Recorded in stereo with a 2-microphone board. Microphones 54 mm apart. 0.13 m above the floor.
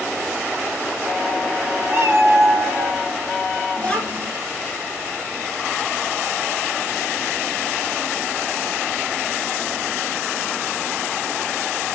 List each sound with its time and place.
1.9 s a cat meowing: 35° right (ahead or behind), 0.7 m; by 3.0 s 65° right (ahead or behind), 1.1 m
3.8 s a child speaking: 25° left (ahead or behind), 0.9 m